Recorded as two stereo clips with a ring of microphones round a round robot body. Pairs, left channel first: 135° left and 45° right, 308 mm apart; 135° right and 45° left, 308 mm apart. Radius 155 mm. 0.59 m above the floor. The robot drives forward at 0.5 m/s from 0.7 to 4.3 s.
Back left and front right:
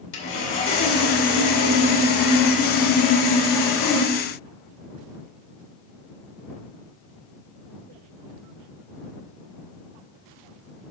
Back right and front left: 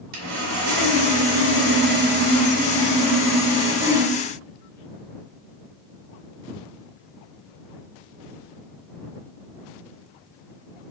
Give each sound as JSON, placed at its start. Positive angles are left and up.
{"t": 0.1, "sound": "sawing", "azimuth_deg": 85, "distance_m": 2.0}